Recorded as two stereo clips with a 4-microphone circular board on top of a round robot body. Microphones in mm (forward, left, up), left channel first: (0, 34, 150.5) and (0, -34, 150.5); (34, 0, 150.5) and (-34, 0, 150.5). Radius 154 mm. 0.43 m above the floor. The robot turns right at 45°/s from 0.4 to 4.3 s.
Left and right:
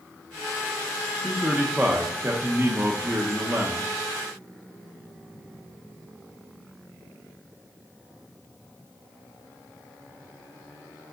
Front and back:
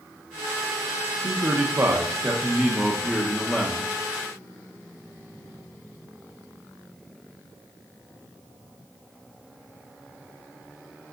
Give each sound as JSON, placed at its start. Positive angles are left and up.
{"t": 1.2, "sound": "a man speaking", "azimuth_deg": -165, "distance_m": 1.1}